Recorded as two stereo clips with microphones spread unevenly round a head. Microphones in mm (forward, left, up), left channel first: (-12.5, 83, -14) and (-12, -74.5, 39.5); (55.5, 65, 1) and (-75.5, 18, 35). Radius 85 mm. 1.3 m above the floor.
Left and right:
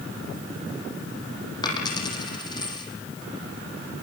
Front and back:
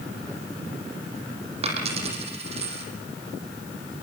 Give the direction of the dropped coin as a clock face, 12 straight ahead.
7 o'clock.